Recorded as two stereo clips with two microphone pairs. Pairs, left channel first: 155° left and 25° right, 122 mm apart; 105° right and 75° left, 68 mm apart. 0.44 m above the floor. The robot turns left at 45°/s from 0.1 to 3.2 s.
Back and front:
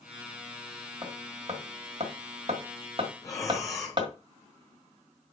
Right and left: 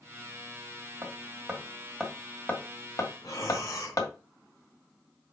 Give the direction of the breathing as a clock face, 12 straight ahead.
5 o'clock.